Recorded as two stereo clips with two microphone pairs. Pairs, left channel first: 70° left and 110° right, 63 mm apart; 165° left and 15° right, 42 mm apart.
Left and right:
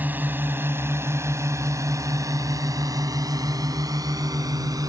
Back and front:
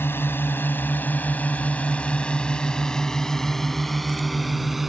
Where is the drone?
170° right; by 4.9 s 100° right.